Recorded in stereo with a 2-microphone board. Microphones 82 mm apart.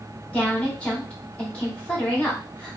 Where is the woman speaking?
15° left (ahead or behind), 1.6 m.